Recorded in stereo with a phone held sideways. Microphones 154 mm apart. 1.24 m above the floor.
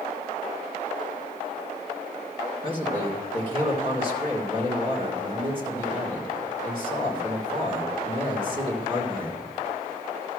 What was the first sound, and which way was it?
A man speaking, 35° right (ahead or behind).